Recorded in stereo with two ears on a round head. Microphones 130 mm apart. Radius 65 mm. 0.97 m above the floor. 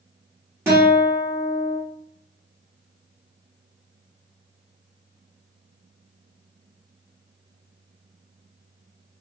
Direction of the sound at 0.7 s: 15° right (ahead or behind).